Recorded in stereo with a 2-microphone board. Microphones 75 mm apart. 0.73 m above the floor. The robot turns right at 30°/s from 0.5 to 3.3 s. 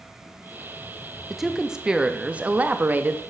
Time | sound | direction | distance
1.3 | a woman speaking | 175° right | 0.5 m